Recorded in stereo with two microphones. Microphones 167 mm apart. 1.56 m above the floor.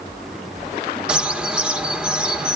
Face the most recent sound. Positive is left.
turn(degrees=-5)  # may be behind; listen again after turning